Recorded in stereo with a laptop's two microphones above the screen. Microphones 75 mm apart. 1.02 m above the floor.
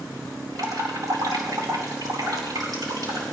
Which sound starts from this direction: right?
Dripping, at 0.6 s.